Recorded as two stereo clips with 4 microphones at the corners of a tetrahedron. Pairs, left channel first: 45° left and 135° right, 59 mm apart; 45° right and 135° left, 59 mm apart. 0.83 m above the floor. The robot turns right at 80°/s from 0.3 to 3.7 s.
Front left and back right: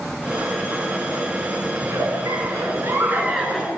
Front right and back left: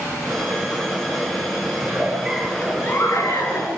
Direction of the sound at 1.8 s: 175° left.